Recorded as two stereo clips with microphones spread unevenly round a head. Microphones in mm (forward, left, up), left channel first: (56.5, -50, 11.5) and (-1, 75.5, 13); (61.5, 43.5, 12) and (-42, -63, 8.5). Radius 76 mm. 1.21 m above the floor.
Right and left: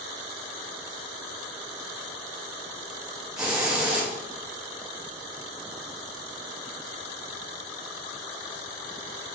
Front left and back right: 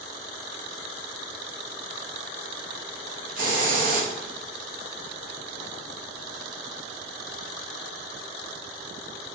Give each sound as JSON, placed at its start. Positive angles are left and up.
{"t": 3.4, "sound": "a hiss", "azimuth_deg": -160, "distance_m": 0.9}